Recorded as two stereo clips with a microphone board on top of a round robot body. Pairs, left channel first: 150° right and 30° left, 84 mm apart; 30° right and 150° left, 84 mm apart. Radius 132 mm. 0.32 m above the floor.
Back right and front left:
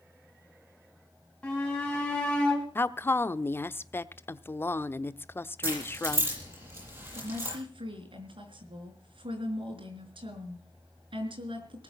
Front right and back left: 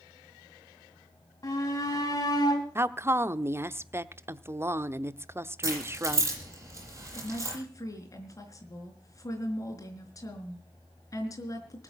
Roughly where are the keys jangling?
Left.